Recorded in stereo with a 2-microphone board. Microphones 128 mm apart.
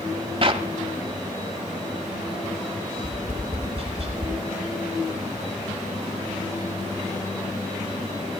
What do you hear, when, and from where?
0.4 s a clap: 45° right (ahead or behind), 1.2 m
3.0 s tapping: 40° right (ahead or behind), 4.5 m